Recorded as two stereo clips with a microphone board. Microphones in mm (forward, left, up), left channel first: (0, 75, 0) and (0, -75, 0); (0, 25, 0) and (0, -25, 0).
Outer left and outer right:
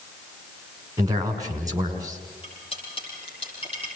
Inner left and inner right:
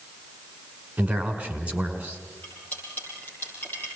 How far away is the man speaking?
About 5.5 m.